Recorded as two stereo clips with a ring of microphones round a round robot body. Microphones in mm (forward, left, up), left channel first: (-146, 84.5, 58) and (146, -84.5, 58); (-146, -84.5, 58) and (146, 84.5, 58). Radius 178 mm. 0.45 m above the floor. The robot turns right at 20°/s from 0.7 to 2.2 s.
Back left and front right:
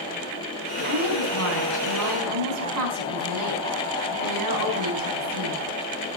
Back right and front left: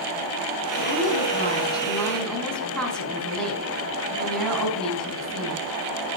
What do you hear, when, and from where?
0.8 s a woman speaking: 90° right, 4 m; by 5.6 s 65° right, 4 m